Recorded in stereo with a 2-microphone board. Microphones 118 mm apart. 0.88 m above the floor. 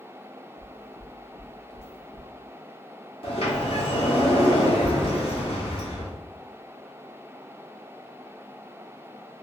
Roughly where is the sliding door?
Left.